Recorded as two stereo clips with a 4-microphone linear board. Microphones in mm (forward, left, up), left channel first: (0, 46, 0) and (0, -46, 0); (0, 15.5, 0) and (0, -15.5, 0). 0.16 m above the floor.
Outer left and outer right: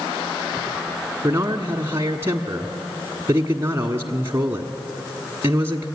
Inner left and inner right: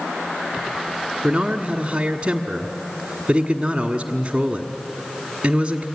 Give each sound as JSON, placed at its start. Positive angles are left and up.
{"t": 1.2, "sound": "a man speaking", "side_deg": -30, "distance_m": 1.3}